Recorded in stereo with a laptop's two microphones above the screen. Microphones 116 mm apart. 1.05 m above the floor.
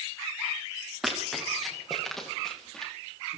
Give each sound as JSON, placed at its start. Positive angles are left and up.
{"t": 1.0, "sound": "running footsteps", "side_deg": 0, "distance_m": 9.5}